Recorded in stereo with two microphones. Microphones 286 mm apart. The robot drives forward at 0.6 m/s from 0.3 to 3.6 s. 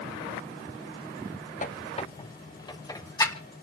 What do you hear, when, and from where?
1.6 s a squeak: 30° left (ahead or behind), 0.6 m; by 3.4 s 10° left (ahead or behind), 1.4 m